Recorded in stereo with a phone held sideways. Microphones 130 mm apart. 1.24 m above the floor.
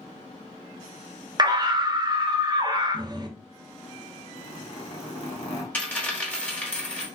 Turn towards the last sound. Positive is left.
turn(degrees=10)  # may be behind; listen again after turning